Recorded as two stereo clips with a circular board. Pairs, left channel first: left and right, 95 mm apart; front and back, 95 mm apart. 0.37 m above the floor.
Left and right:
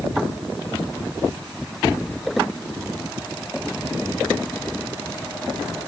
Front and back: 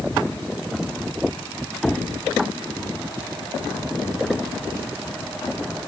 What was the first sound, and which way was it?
Only background noise.